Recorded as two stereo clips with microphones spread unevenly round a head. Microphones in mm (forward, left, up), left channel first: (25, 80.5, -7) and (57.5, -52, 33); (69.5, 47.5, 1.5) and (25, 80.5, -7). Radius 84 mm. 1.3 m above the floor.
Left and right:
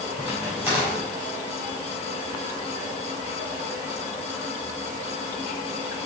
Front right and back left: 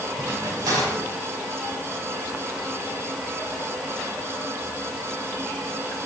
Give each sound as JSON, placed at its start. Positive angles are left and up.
{"t": 0.2, "sound": "a crack", "azimuth_deg": -155, "distance_m": 4.0}